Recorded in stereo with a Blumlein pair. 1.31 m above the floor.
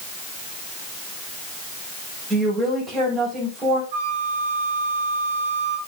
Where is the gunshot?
No gunshot in this recording.